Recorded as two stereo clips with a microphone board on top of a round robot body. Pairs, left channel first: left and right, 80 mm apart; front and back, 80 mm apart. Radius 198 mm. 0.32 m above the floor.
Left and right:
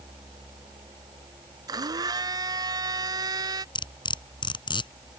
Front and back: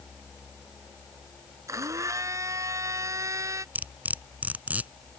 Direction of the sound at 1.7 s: 130° right.